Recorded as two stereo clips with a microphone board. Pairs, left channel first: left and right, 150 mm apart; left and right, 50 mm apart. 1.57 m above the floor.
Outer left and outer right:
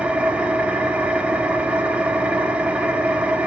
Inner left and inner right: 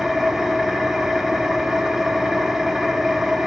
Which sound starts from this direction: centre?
An engine running, at 0.0 s.